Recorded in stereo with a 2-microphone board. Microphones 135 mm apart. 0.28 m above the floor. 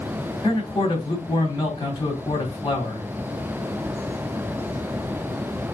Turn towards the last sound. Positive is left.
turn(degrees=35)  # may be behind; listen again after turning